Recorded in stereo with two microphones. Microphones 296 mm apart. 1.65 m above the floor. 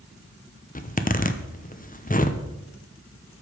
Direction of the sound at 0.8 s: 30° left (ahead or behind).